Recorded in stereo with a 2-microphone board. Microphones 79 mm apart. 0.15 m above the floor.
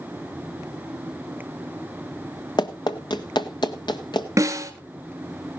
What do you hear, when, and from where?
2.6 s running footsteps: 60° left (ahead or behind), 1.2 m; by 4.3 s 65° left (ahead or behind), 2 m
4.4 s a snare drum: 40° right (ahead or behind), 1.4 m